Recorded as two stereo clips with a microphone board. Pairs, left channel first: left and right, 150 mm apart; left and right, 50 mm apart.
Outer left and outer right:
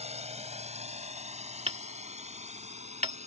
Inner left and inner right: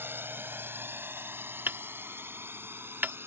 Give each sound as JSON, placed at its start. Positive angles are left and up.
{"t": 0.0, "sound": "a drone", "side_deg": -45}
{"t": 1.7, "sound": "hammering", "side_deg": -45}